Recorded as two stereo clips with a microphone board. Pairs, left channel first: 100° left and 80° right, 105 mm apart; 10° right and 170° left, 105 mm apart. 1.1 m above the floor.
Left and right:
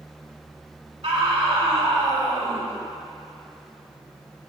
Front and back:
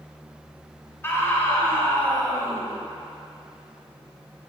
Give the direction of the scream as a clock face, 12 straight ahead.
3 o'clock.